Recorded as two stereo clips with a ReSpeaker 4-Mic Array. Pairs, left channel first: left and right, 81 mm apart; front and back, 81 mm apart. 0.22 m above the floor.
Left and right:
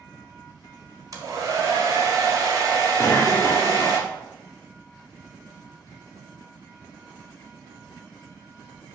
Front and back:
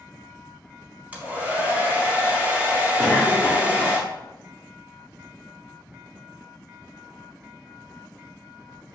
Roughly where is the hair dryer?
Behind right.